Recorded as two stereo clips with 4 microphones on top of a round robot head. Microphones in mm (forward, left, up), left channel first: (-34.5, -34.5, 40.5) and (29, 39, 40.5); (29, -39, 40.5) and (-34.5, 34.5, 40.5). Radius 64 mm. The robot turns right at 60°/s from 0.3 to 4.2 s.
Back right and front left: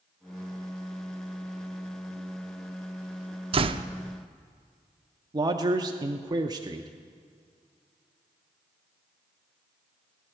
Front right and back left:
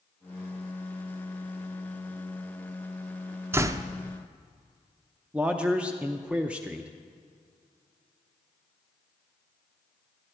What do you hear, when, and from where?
3.5 s a door slam: 65° left, 0.6 m; by 3.9 s 85° left, 0.6 m
5.3 s a man speaking: 60° left, 0.7 m